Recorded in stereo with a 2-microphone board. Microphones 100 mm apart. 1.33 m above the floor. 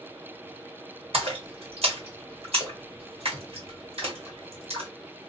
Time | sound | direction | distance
1.1 | a splash | 75° right (ahead or behind) | 1.4 m